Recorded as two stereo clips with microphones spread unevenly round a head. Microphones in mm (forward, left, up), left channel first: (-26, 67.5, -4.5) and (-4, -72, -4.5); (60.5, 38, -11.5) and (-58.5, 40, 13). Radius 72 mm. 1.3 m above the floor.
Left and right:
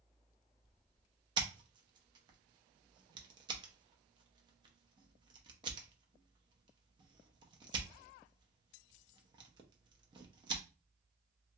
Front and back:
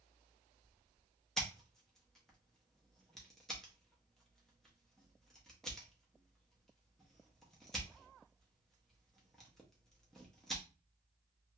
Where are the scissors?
105° right, 0.6 m.